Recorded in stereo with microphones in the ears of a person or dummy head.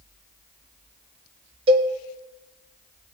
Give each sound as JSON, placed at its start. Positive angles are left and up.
{"t": 1.7, "sound": "a cowbell", "side_deg": -30, "distance_m": 0.9}